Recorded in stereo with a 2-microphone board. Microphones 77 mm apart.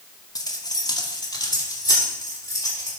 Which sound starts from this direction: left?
Keys jangling, at 0.3 s.